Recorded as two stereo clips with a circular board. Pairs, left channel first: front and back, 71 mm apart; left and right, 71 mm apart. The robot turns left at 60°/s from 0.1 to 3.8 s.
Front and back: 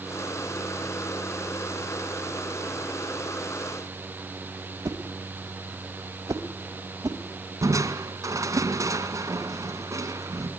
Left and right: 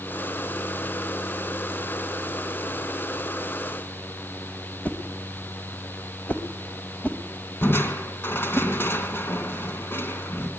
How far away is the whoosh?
About 2 m.